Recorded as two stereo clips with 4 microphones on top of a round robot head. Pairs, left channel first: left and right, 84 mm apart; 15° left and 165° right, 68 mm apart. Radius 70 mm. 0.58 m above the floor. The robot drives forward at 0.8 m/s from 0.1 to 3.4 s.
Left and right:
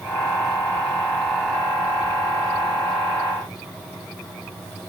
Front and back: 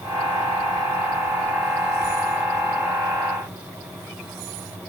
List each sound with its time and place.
Only background noise.